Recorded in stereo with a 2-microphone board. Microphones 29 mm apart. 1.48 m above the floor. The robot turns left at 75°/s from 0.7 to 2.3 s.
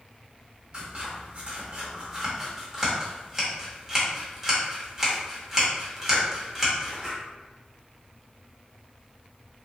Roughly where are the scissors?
Right.